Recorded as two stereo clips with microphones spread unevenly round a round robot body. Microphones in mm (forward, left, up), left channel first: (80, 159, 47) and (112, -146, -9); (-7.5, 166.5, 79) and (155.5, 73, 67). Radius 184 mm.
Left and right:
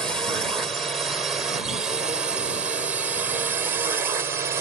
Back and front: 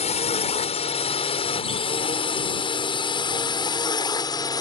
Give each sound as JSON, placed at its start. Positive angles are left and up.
{"t": 0.0, "sound": "a drone", "azimuth_deg": -165}